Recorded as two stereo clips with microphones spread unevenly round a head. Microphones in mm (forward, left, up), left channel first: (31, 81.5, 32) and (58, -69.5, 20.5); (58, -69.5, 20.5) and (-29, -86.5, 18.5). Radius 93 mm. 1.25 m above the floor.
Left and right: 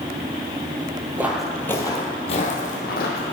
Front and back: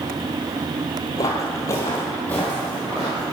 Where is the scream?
No scream in this recording.